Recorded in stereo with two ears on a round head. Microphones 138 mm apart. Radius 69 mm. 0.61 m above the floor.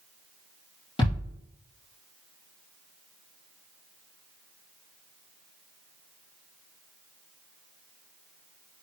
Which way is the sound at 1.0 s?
35° left (ahead or behind).